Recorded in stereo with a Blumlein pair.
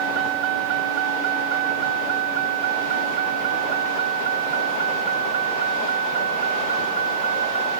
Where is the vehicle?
40° right; by 7.8 s 70° right.